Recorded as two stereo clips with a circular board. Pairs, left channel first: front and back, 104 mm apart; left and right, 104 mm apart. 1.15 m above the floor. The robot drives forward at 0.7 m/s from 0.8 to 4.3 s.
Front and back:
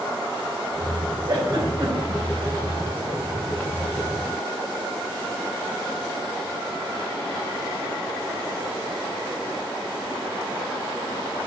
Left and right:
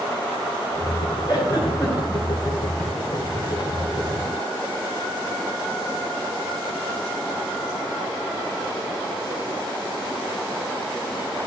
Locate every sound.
1.3 s a giggle: 135° left, 4.5 m; by 2.2 s 140° left, 5 m